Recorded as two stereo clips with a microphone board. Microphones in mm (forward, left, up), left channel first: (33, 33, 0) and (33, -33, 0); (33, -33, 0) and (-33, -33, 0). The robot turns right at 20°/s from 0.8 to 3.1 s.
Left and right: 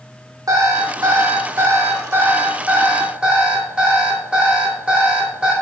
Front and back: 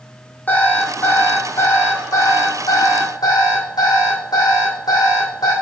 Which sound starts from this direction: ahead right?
An alarm clock, at 0.5 s.